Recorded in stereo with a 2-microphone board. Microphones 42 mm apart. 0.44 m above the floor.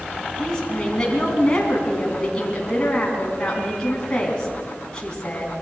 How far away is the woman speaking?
About 4 m.